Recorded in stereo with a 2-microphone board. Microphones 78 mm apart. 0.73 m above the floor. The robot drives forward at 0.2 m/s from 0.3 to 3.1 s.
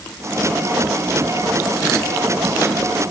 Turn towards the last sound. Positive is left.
No sound to turn to.